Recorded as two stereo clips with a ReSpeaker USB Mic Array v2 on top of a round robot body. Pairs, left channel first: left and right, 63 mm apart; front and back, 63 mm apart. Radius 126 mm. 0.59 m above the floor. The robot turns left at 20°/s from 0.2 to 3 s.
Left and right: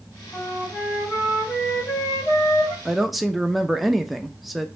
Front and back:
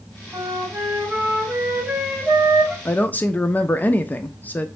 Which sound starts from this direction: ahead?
A woman speaking, at 2.9 s.